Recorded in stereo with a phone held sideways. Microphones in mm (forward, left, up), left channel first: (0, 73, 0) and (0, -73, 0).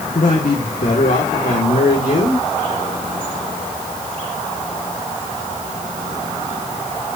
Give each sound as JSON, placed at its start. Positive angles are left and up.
{"t": 0.1, "sound": "a man speaking", "side_deg": 65, "distance_m": 2.0}